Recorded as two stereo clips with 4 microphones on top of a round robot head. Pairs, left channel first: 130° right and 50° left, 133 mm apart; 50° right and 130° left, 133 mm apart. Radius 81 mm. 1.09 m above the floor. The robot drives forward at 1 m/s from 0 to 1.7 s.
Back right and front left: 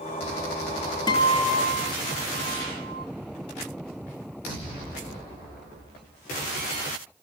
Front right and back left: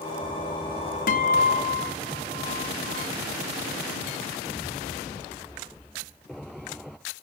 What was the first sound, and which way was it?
A guitar, 70° right.